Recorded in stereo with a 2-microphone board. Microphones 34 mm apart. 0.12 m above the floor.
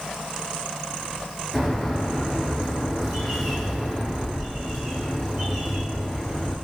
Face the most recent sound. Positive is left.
turn(degrees=0)  # may be behind; listen again after turning